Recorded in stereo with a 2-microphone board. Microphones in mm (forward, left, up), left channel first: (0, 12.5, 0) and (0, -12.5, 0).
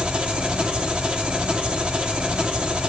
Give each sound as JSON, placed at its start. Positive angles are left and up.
{"t": 0.0, "sound": "an engine running", "side_deg": -45, "distance_m": 1.8}